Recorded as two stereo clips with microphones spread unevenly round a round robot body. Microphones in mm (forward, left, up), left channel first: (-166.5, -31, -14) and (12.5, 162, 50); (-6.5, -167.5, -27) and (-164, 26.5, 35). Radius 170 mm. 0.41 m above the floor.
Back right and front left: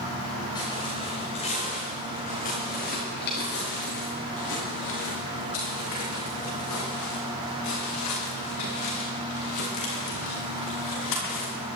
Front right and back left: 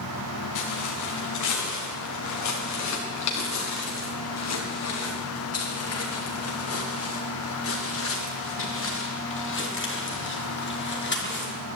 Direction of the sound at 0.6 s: 55° right.